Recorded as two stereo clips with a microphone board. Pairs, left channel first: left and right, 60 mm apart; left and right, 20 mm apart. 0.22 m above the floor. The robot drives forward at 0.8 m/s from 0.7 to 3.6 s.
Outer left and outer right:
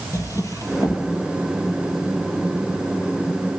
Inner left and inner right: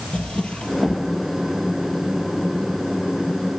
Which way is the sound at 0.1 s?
65° left (ahead or behind).